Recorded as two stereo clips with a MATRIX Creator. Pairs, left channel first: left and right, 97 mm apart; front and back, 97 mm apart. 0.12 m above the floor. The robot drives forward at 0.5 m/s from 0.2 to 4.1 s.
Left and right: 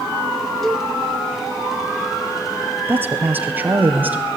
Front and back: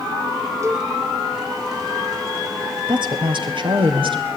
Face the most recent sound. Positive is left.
turn(degrees=-160)